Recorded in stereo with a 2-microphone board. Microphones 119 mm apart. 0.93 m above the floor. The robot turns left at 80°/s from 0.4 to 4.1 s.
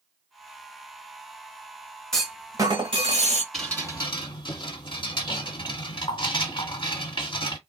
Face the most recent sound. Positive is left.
turn(degrees=140)